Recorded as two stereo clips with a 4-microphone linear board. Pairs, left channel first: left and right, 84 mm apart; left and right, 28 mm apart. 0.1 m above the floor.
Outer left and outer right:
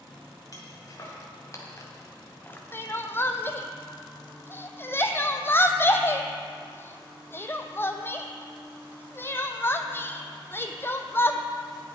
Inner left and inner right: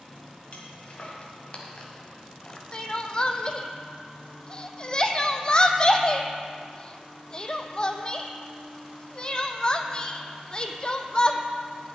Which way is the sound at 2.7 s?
25° left (ahead or behind).